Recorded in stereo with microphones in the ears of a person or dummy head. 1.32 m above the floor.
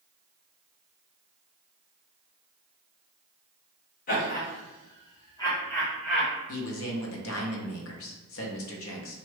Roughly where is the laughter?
Left.